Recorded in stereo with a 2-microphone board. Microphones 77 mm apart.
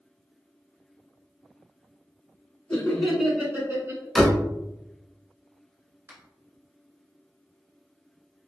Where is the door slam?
Centre (ahead or behind), 0.8 m.